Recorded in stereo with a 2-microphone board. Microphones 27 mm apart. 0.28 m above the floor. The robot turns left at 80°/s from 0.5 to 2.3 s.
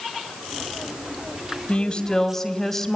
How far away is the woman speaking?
About 2 m.